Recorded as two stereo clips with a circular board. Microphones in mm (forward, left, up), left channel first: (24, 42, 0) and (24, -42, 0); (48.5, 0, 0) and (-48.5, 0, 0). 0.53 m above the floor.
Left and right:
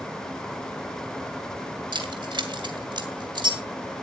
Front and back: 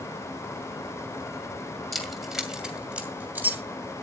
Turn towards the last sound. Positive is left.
turn(degrees=-110)